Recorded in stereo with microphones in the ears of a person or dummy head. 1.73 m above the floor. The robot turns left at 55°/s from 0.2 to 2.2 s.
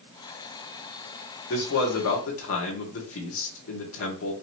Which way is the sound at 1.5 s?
120° left.